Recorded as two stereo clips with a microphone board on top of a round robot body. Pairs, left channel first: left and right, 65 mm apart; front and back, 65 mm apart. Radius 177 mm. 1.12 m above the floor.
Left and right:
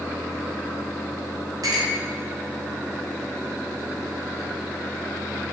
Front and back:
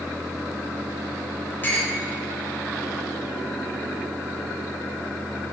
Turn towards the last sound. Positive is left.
turn(degrees=-60)